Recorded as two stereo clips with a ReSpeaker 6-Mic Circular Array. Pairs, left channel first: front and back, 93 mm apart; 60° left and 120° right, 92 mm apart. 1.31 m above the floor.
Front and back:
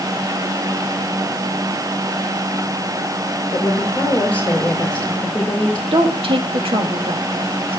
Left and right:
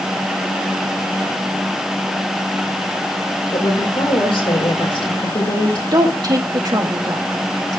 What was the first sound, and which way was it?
A woman speaking, 75° left.